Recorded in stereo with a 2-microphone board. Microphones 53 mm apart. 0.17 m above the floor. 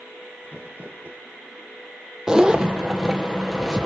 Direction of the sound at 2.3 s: 15° right (ahead or behind).